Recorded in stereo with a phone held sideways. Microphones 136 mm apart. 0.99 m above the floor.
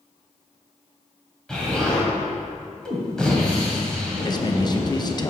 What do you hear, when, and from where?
1.5 s an explosion: 5° left (ahead or behind), 1.9 m
4.2 s a man speaking: 30° left (ahead or behind), 0.6 m